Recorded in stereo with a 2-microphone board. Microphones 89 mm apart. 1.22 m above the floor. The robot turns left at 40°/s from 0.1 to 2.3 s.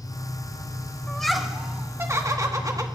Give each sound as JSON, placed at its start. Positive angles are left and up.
{"t": 0.0, "sound": "an engine running", "azimuth_deg": 65, "distance_m": 4.0}
{"t": 1.1, "sound": "laughter", "azimuth_deg": 10, "distance_m": 1.3}